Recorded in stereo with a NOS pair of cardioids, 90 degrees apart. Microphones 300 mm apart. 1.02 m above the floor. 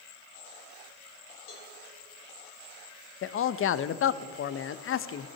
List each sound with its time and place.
1.5 s a cowbell: 45° left, 3 m
3.2 s a man speaking: 45° left, 0.7 m